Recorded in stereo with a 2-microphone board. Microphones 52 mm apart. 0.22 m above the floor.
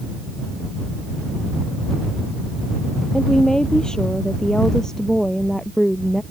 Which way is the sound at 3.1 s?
15° left (ahead or behind).